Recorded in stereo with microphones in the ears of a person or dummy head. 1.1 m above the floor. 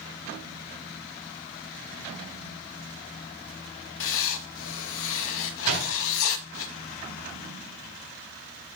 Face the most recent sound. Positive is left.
turn(degrees=-45)  # may be behind; listen again after turning